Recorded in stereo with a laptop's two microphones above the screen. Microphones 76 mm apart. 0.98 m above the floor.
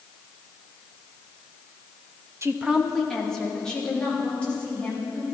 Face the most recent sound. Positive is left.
turn(degrees=20)  # may be behind; listen again after turning